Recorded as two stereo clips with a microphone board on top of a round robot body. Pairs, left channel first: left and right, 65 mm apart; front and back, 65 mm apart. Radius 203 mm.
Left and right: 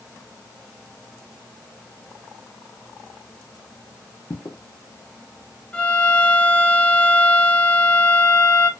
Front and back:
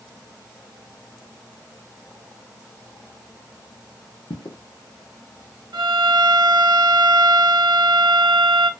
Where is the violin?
165° left, 0.5 m.